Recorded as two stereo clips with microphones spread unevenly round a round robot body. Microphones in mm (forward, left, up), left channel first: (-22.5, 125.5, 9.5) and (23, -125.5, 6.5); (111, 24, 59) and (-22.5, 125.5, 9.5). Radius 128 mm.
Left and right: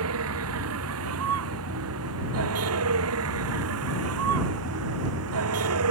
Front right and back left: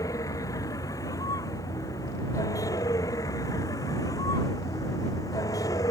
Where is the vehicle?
115° right.